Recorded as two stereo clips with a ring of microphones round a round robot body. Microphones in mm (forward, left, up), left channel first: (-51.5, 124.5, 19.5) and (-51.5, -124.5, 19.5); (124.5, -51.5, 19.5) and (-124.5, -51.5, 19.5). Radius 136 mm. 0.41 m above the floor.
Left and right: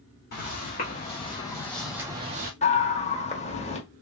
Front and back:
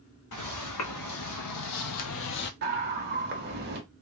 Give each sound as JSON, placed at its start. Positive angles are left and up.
{"t": 0.3, "sound": "footsteps", "azimuth_deg": 30, "distance_m": 1.4}
{"t": 2.6, "sound": "a scream", "azimuth_deg": 145, "distance_m": 1.3}